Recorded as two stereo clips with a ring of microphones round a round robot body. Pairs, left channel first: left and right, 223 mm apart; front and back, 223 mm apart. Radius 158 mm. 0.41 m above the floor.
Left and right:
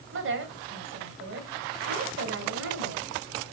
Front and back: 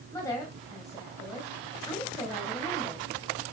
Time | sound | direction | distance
0.1 | a woman speaking | 80° right | 2.5 m